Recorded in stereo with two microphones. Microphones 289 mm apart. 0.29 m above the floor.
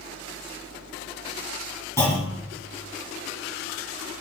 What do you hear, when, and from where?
2.0 s a clunk: 10° left (ahead or behind), 3 m